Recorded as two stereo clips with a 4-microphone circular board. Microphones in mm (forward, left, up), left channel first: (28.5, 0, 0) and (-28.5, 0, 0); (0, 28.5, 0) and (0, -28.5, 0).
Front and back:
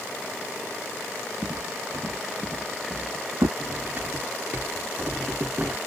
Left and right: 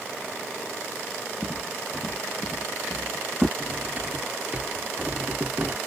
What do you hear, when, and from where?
1.4 s footsteps: 175° right
3.6 s cutlery clinking: 140° right